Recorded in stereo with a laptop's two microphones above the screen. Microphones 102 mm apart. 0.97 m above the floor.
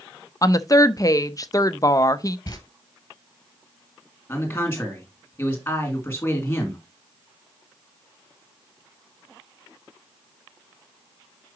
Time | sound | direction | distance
0.4 | a woman speaking | 35° left (ahead or behind) | 0.5 m
2.5 | footsteps | 35° left (ahead or behind) | 1.2 m
4.3 | a man speaking | 20° left (ahead or behind) | 2.5 m